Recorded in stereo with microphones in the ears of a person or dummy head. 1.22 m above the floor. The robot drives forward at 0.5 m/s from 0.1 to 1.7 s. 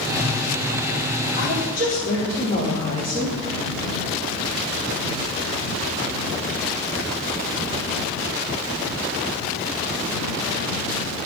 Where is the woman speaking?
35° left (ahead or behind), 3.5 m; by 3.4 s 30° left (ahead or behind), 3.5 m.